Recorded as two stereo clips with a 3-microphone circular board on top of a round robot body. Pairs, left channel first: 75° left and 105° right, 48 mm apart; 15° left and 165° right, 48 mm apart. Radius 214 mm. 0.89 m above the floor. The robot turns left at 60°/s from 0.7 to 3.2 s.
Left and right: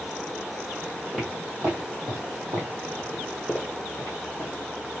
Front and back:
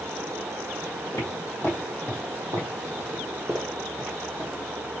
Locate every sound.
1.1 s footsteps: 5° right, 1.4 m; by 4.5 s 110° left, 1.3 m